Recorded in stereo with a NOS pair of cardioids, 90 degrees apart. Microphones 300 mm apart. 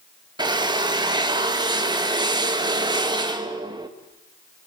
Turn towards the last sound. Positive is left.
turn(degrees=-15)